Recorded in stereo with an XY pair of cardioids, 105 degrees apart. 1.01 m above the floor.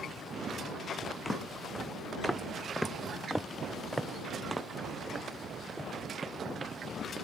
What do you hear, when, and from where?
1.2 s footsteps: 15° left; by 7.2 s 35° right